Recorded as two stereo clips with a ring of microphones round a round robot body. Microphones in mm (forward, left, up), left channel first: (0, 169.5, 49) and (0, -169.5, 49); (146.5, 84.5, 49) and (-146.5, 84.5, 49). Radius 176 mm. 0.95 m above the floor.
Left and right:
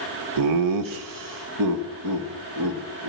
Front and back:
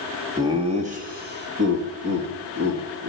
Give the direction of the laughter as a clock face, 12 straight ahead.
3 o'clock.